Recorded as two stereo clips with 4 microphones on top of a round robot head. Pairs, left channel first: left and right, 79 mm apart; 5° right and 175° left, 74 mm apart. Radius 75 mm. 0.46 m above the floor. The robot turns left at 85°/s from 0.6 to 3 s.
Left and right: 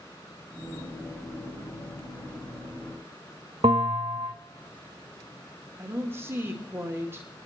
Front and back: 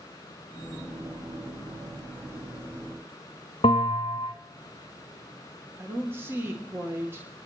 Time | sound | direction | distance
3.6 | a bell | 45° right | 0.8 m
5.8 | a woman speaking | 140° right | 1.7 m